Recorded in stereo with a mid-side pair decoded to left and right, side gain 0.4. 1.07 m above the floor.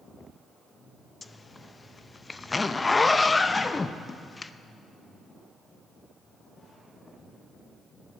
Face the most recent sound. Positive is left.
turn(degrees=30)